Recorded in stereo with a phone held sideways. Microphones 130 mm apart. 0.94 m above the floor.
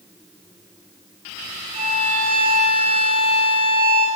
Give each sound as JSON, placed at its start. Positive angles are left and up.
{"t": 1.7, "sound": "a violin", "side_deg": -50, "distance_m": 2.5}